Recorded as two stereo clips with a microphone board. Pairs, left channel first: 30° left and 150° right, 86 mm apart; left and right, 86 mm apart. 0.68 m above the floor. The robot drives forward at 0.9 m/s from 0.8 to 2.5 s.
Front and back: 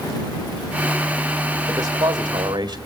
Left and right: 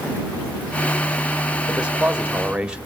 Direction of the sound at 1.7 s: 160° right.